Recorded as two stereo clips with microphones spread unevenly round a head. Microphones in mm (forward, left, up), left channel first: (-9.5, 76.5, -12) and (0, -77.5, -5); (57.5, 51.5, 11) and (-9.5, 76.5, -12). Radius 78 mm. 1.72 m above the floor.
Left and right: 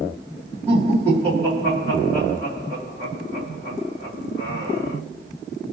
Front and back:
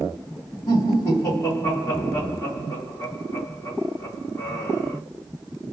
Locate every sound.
0.7 s laughter: 10° left, 2.5 m